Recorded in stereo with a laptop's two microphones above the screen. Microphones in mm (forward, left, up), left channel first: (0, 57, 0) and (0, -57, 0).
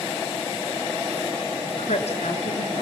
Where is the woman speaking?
75° left (ahead or behind), 2.5 m.